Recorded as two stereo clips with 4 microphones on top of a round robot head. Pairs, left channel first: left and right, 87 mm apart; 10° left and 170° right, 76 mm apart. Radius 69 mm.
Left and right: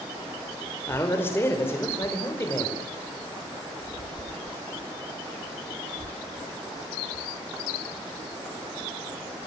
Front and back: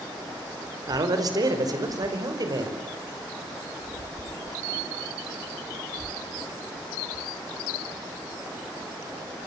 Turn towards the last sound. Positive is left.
turn(degrees=155)